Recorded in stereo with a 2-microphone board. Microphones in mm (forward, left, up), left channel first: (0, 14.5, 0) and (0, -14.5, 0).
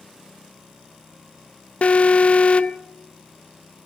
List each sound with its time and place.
1.8 s an alarm: 50° left (ahead or behind), 0.7 m